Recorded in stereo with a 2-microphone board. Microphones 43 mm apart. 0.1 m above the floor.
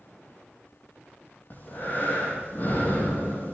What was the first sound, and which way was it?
Breathing, 45° left (ahead or behind).